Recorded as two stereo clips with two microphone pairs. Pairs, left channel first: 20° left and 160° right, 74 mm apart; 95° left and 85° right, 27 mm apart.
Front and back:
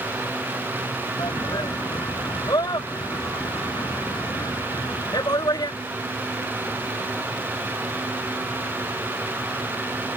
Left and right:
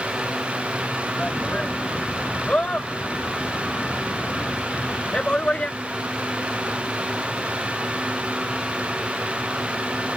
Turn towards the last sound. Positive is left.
turn(degrees=45)